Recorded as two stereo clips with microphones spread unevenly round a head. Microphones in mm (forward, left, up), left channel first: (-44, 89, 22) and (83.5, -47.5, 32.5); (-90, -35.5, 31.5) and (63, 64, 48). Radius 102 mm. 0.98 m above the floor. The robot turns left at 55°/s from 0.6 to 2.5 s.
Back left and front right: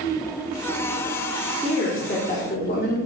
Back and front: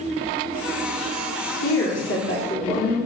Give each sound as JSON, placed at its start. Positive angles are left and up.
{"t": 1.6, "sound": "a woman speaking", "azimuth_deg": -130, "distance_m": 2.5}